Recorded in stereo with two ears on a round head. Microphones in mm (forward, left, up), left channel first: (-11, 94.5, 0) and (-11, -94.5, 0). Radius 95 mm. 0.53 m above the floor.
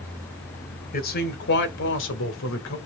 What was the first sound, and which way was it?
A man speaking, 45° left (ahead or behind).